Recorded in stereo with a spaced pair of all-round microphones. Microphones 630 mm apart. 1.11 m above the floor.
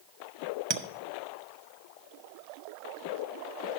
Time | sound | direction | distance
0.7 | a clink | 45° right (ahead or behind) | 0.7 m